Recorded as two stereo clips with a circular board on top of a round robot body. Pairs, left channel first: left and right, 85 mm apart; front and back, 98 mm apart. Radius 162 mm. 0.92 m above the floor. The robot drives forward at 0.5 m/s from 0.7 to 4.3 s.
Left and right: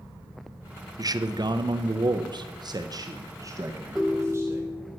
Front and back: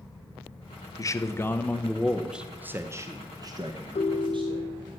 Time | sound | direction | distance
1.0 | a man speaking | 50° right | 1.0 m
4.0 | a ringtone | 5° right | 0.8 m